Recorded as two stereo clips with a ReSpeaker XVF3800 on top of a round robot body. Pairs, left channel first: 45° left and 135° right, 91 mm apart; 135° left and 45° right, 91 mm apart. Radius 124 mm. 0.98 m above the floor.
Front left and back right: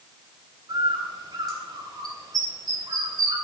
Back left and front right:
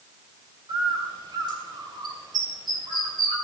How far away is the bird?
About 3 m.